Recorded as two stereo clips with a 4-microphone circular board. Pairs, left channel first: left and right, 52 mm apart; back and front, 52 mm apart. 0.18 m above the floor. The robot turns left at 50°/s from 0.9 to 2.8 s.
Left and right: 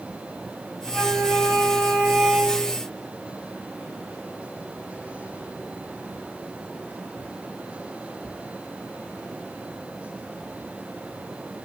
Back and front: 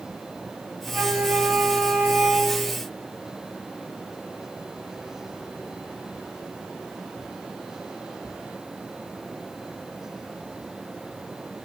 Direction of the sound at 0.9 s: 45° right.